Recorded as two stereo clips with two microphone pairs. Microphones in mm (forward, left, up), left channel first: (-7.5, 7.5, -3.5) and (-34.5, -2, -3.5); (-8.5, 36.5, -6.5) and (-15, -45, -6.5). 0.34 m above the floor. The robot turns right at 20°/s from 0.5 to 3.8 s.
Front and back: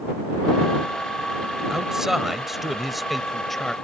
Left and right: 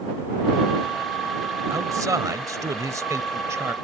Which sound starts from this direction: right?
A man speaking, at 1.7 s.